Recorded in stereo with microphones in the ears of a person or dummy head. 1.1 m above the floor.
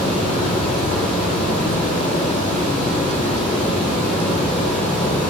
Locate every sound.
0.0 s running water: 5° left (ahead or behind), 2.5 m